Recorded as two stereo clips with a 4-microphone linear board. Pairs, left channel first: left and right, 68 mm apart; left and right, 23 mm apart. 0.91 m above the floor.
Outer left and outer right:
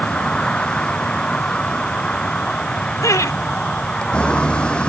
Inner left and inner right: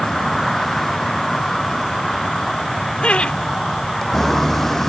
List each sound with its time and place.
0.0 s a vehicle: 15° left (ahead or behind)
3.0 s laughter: 55° left (ahead or behind)